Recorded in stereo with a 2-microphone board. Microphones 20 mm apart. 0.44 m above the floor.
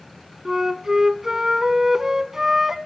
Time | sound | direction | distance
0.5 | a flute | 20° right (ahead or behind) | 0.6 m